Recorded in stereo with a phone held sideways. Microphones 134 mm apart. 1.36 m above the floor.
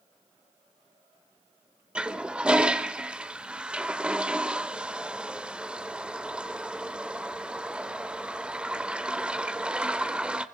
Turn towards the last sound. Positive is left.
turn(degrees=-10)  # may be behind; listen again after turning